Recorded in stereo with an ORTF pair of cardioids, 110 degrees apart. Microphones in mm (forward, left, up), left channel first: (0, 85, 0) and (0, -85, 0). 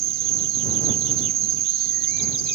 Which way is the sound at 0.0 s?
70° right.